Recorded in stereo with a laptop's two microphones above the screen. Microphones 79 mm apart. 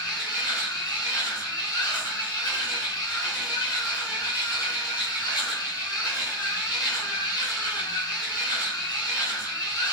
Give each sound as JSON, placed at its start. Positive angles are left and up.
{"t": 0.0, "sound": "a machine running", "side_deg": 55, "distance_m": 4.0}